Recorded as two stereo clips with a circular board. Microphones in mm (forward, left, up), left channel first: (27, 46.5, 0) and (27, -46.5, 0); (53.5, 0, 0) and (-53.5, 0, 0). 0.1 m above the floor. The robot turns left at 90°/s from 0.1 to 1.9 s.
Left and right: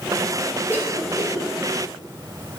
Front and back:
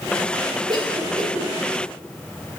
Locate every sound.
0.7 s a cough: 145° right, 2.5 m; by 1.5 s 140° left, 2.5 m